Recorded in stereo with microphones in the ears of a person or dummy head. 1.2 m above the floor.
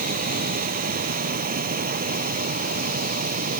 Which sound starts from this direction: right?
A machine running, at 0.0 s.